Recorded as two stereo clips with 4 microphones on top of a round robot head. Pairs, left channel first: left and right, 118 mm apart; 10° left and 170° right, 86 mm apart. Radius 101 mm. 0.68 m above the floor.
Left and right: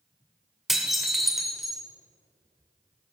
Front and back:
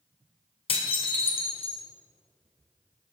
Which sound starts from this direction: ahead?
Dishes clattering, at 0.7 s.